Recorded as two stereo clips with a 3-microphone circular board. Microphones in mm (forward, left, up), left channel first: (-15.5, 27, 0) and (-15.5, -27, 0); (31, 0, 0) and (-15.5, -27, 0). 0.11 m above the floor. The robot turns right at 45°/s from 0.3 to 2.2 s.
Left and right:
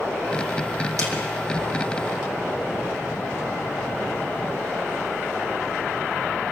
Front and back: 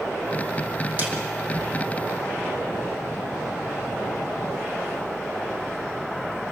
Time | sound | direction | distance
1.0 | a snare drum | 95° right | 5 m